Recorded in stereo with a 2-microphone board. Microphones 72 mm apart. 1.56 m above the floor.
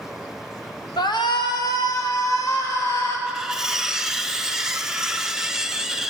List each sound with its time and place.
1.0 s a shout: 85° left, 1.2 m; by 3.2 s 45° left (ahead or behind), 3 m
3.3 s cutlery clinking: 5° right (ahead or behind), 0.6 m